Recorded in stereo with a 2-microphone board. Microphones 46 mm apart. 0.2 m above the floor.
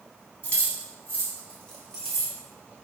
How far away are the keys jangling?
About 1.2 m.